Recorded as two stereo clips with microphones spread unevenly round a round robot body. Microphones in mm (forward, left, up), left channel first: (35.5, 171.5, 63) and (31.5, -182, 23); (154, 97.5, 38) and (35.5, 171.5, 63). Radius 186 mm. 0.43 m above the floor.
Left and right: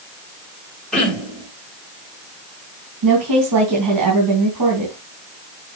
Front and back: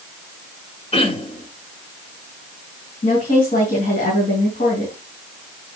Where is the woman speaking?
60° right, 3.5 m.